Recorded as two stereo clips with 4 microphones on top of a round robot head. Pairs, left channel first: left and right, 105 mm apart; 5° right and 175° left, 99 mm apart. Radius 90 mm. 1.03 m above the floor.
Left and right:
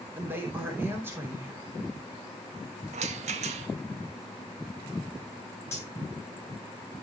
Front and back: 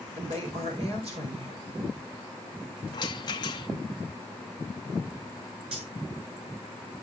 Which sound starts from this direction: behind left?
Cutlery clinking, at 5.7 s.